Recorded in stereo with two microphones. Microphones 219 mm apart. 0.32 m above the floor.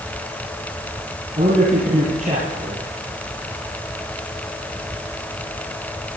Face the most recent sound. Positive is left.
turn(degrees=-40)  # may be behind; listen again after turning